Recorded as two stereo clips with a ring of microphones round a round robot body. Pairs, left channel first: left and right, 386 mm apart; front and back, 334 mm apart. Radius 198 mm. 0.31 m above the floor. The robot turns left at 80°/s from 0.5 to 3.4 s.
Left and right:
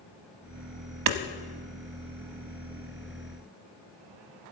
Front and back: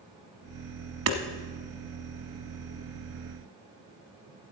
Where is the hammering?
130° right, 0.8 m; by 1.2 s 140° right, 0.8 m.